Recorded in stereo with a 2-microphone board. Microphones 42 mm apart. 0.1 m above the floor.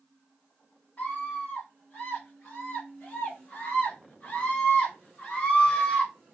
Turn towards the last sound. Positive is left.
turn(degrees=15)  # may be behind; listen again after turning